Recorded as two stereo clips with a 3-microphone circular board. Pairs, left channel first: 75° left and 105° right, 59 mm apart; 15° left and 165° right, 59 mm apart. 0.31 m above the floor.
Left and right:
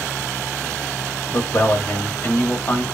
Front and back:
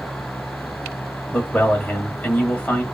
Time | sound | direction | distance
1.3 | a man speaking | 65° left | 1.2 m